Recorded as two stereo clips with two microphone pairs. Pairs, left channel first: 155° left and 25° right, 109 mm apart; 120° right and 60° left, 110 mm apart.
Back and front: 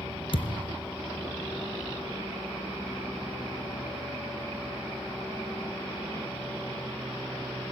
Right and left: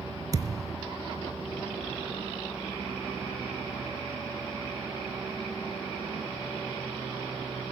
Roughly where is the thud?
Behind left.